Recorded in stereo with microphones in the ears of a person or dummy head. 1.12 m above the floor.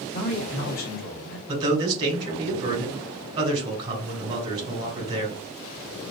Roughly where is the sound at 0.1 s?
Left.